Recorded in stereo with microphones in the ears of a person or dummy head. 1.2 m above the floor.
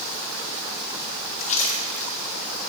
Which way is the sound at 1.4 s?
35° left (ahead or behind).